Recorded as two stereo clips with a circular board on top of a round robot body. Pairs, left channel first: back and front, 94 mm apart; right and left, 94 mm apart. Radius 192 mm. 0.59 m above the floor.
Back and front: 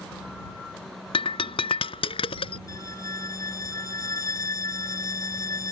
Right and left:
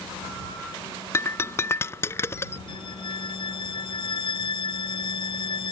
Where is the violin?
125° right.